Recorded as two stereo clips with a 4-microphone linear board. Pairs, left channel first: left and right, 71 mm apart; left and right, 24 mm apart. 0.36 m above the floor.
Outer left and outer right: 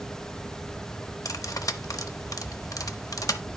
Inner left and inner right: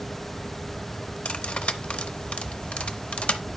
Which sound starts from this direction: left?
Cutlery clinking, at 1.2 s.